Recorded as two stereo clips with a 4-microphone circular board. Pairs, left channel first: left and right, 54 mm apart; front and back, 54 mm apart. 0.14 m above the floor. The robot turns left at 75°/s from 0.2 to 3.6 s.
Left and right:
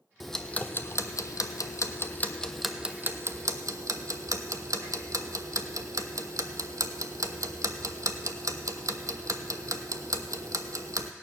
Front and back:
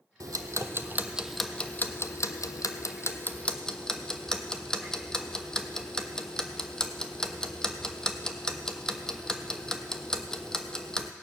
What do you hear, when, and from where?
0.2 s ticking: straight behind, 0.7 m; by 11.1 s 75° right, 0.7 m